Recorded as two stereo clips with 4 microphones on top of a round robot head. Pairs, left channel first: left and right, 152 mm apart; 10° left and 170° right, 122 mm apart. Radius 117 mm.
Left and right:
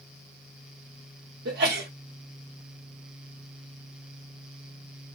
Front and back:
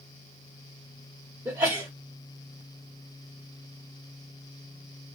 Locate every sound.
1.4 s a sneeze: 100° right, 1.1 m